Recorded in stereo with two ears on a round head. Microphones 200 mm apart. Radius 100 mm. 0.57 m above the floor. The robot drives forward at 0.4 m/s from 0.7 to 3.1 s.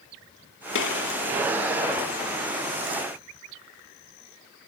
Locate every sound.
0.8 s a gunshot: 65° left (ahead or behind), 1.7 m; by 1.2 s 60° left (ahead or behind), 1.7 m